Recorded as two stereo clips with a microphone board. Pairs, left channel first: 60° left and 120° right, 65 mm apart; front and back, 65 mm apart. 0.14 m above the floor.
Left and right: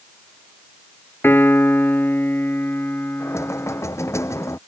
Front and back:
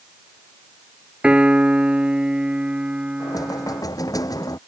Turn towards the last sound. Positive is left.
turn(degrees=20)